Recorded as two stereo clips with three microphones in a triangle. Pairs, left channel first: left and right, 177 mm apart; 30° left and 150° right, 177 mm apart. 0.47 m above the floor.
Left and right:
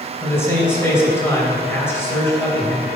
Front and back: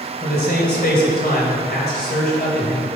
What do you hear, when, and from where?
0.2 s a man speaking: 15° left, 2.5 m